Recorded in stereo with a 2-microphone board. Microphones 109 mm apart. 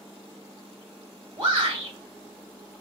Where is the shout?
35° right (ahead or behind), 1.3 m.